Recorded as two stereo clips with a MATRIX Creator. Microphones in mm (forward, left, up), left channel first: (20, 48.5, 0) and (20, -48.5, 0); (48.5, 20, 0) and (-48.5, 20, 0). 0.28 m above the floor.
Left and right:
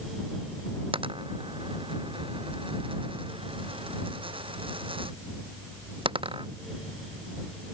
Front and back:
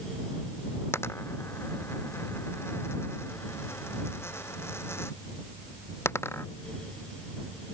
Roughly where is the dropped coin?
Ahead right.